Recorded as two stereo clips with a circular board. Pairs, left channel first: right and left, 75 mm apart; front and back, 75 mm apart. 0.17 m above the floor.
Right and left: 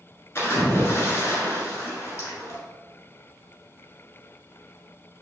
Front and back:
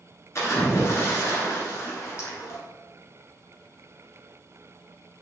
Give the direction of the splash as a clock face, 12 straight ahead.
1 o'clock.